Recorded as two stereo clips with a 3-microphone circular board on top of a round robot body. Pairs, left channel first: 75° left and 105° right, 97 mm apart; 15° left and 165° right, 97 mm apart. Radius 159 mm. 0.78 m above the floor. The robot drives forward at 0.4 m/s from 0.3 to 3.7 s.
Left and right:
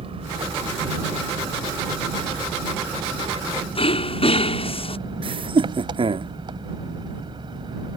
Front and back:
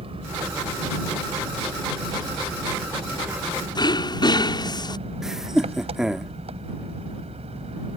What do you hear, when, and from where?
0.0 s an engine running: 135° right; by 8.0 s 150° right
3.8 s throat clearing: 60° left
5.2 s laughter: 80° right